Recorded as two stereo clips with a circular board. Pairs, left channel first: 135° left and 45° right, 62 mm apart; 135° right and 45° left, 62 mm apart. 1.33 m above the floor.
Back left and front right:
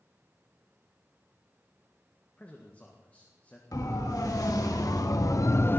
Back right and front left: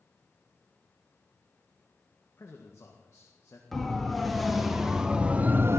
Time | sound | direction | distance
2.4 | a man speaking | 165° right | 1.7 m
3.7 | a siren | 140° left | 2.5 m